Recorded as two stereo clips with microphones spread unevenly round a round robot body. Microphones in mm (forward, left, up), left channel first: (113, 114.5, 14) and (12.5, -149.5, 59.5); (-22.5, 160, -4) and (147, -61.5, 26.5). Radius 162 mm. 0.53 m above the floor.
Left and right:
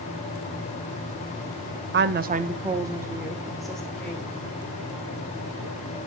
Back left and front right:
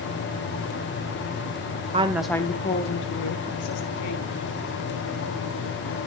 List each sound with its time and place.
1.9 s a woman speaking: 110° right, 0.7 m; by 4.3 s 150° left, 1.9 m